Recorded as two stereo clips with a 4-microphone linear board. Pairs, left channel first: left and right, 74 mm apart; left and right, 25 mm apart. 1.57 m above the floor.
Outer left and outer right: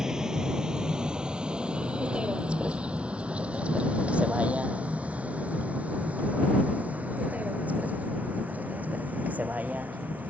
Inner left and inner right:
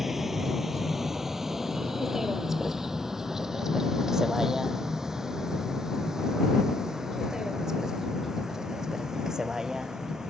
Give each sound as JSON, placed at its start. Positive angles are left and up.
{"t": 0.0, "sound": "a vehicle", "side_deg": -10}